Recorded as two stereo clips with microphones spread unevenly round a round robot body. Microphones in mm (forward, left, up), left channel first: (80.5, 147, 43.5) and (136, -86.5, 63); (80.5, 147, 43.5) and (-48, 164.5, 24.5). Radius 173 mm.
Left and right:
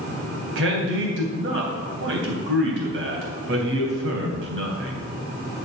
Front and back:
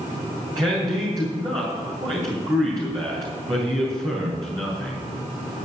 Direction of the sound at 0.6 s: 120° right.